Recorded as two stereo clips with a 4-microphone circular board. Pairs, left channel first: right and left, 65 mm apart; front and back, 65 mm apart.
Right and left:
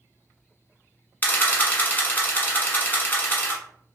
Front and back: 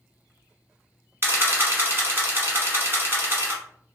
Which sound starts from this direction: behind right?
A camera shutter, at 1.2 s.